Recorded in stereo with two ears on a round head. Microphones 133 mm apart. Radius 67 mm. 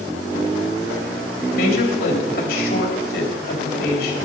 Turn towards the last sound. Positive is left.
turn(degrees=70)  # may be behind; listen again after turning